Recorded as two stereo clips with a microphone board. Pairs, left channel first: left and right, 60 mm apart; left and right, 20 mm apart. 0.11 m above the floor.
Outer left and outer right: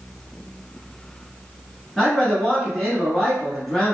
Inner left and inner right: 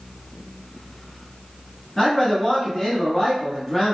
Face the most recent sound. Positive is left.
turn(degrees=5)  # may be behind; listen again after turning